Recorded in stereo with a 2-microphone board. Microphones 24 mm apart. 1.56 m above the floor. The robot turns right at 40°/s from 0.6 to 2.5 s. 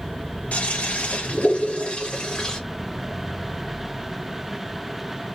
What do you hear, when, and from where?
0.5 s a toilet flushing: 80° left, 2.5 m; by 2.6 s 155° left, 2.5 m